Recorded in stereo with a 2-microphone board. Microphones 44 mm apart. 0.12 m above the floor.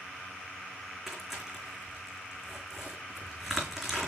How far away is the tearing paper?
About 3.5 m.